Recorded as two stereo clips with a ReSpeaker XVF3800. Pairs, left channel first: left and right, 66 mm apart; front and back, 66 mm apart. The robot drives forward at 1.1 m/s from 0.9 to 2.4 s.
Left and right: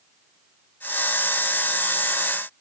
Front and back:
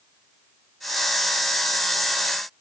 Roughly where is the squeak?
I don't hear a squeak.